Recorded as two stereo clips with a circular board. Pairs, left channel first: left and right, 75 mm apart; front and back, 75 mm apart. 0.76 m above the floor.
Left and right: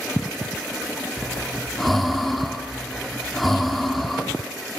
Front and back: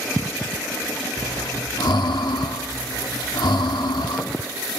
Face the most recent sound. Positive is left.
turn(degrees=0)